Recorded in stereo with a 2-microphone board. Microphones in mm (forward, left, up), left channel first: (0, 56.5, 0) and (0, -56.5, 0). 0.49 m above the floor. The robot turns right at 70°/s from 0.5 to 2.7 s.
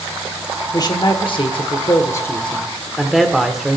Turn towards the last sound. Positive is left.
turn(degrees=-175)